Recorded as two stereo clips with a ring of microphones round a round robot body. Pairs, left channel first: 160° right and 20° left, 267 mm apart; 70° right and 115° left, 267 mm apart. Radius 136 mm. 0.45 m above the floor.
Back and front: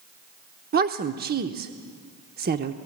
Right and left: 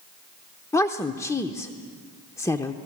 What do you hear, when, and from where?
0.7 s a woman speaking: 5° left, 0.8 m